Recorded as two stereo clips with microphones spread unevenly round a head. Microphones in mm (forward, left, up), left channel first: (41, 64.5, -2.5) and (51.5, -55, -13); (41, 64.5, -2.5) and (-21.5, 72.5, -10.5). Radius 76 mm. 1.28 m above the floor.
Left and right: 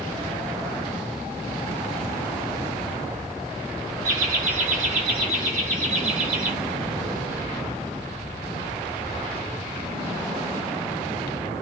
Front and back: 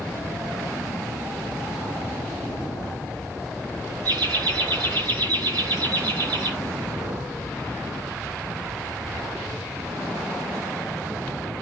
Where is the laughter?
130° right, 2 m.